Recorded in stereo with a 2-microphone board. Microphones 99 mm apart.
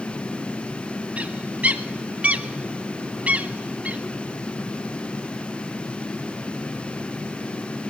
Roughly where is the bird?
Centre.